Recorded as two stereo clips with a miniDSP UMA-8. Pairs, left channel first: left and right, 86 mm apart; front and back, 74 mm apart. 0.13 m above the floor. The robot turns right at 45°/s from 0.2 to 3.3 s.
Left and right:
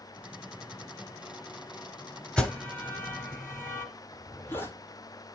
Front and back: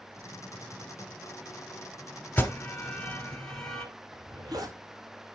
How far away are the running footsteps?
No running footsteps in this recording.